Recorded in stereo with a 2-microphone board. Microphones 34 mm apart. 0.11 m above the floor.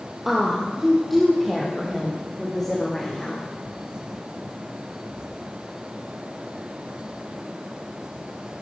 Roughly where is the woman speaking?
Centre.